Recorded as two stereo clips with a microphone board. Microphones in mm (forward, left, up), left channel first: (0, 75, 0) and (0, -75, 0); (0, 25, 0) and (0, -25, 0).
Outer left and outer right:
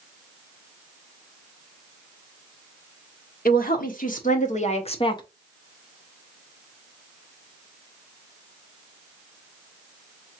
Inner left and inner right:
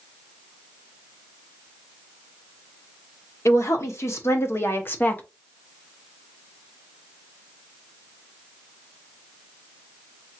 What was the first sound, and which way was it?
A woman speaking, 65° left (ahead or behind).